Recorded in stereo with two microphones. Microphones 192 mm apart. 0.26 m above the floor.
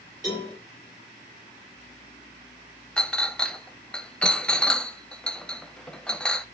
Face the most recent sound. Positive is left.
turn(degrees=5)  # may be behind; listen again after turning